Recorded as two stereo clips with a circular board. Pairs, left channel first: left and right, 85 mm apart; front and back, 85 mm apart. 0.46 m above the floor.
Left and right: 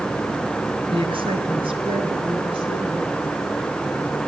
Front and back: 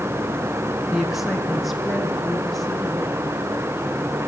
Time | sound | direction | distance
0.9 | a woman speaking | 95° right | 4 m